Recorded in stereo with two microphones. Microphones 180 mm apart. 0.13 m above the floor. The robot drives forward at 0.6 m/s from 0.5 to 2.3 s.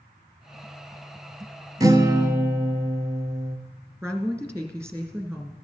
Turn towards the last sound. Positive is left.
turn(degrees=-15)  # may be behind; listen again after turning